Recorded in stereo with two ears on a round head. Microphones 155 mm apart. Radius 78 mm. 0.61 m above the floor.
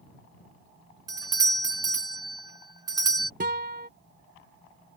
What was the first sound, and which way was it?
A doorbell, 20° right (ahead or behind).